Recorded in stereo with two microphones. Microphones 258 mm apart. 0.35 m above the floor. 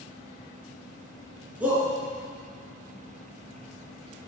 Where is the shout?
5° right (ahead or behind), 5 m.